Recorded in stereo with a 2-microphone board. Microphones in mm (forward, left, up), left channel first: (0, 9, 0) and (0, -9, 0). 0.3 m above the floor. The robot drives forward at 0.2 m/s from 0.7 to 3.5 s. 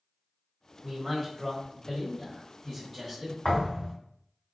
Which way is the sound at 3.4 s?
65° left (ahead or behind).